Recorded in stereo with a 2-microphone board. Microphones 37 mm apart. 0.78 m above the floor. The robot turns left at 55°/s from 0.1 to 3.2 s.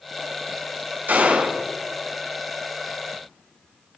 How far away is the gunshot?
About 4.5 m.